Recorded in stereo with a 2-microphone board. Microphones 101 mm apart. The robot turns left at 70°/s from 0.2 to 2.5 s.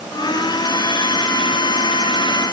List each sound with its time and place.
Only background noise.